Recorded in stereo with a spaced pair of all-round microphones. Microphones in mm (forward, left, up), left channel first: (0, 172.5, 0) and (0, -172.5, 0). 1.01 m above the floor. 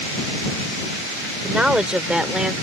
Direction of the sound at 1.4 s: 5° right (ahead or behind).